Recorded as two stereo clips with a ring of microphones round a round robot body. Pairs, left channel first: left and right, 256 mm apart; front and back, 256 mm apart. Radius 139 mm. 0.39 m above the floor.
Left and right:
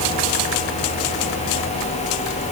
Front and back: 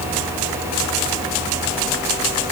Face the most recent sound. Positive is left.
No sound to turn to.